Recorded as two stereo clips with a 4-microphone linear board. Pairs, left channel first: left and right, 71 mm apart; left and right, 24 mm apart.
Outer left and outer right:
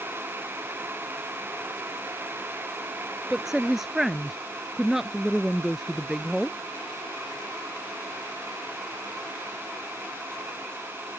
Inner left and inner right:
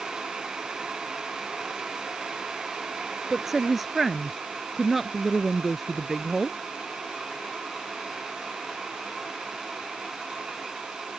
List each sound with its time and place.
3.3 s a woman speaking: 5° right (ahead or behind)